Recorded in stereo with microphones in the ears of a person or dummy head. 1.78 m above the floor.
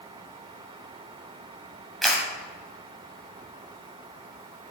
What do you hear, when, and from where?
2.0 s a camera shutter: centre (ahead or behind), 2 m